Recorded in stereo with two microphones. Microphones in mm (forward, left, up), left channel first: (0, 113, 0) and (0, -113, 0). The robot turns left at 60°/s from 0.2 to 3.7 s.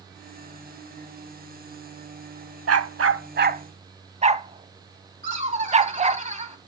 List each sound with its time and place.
2.7 s a dog barking: 90° right, 0.6 m; by 6.2 s 30° right (ahead or behind), 0.6 m
5.2 s laughter: 35° right (ahead or behind), 3 m